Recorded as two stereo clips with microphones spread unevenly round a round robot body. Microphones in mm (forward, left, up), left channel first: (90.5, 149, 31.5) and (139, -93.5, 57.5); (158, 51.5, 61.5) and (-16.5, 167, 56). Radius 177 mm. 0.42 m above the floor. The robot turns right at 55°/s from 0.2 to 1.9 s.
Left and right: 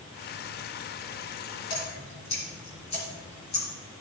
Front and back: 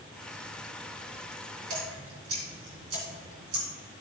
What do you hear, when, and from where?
1.7 s dripping: 150° left, 2.5 m; by 3.7 s 160° left, 2.5 m